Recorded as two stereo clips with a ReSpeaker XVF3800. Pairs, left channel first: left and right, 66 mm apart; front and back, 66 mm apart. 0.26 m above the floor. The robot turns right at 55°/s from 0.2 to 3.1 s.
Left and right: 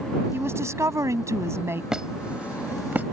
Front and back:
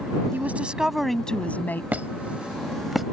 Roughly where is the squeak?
Behind right.